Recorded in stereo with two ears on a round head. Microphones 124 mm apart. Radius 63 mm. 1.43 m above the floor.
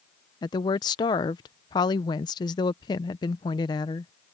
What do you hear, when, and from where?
0.4 s a woman speaking: 30° left (ahead or behind)